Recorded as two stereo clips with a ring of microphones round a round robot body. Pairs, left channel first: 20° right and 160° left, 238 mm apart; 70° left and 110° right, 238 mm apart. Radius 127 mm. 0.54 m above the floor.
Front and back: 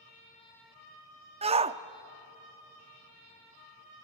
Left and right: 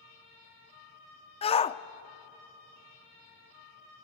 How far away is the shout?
About 0.7 m.